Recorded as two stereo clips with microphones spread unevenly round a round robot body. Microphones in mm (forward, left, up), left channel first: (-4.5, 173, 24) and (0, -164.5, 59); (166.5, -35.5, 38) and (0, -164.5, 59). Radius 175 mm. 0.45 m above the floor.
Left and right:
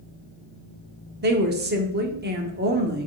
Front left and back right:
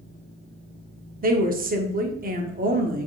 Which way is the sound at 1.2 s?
135° right.